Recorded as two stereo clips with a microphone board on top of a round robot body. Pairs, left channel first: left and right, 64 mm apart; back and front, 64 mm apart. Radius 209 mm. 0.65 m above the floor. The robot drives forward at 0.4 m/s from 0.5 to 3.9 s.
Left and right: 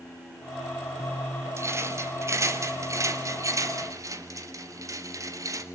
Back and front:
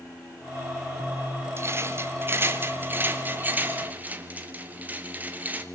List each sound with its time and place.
1.6 s a rattle: 50° right, 3.5 m; by 5.7 s 65° right, 3 m